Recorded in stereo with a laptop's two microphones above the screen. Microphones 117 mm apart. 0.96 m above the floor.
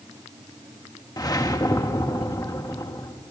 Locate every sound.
1.2 s a whoosh: 35° left (ahead or behind), 0.9 m